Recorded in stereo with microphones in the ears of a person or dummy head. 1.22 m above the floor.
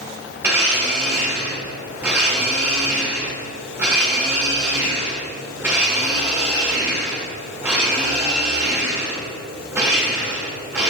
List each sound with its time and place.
0.4 s a blender: 10° right (ahead or behind), 1.7 m